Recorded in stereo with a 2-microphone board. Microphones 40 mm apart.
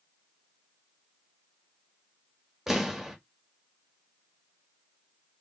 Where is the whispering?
No whispering in this recording.